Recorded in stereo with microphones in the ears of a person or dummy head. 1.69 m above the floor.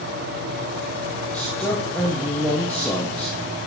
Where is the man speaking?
5° left (ahead or behind), 1.5 m.